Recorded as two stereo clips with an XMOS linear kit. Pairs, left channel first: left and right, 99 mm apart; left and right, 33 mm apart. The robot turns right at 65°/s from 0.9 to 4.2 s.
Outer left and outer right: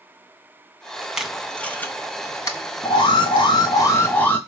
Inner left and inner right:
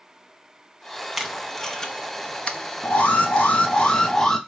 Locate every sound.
1.2 s tape being pulled: 5° right (ahead or behind), 0.6 m; by 3.5 s 20° left (ahead or behind), 0.6 m
2.8 s an alarm: 70° left, 0.8 m; by 4.4 s 160° left, 0.8 m